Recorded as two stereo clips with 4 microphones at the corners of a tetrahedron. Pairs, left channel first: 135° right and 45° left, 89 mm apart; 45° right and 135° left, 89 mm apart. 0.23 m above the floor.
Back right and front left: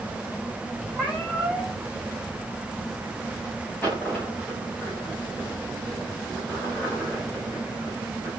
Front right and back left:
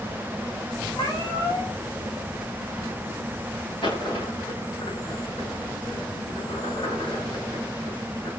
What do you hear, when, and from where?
0.9 s a cat meowing: 50° right, 7 m
3.8 s a dropped coin: 60° right, 9 m